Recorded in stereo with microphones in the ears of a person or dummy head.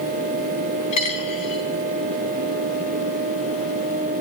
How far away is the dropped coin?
About 4 m.